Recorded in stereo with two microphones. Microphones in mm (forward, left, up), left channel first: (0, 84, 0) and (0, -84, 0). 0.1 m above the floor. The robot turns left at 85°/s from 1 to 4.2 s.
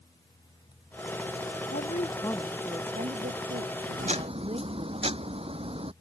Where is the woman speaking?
65° left; by 5.0 s 145° right.